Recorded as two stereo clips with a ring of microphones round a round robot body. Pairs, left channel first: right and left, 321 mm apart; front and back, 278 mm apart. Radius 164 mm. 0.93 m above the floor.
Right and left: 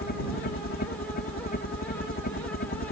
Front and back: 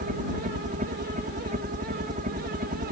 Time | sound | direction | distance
0.0 | a helicopter | 130° right | ?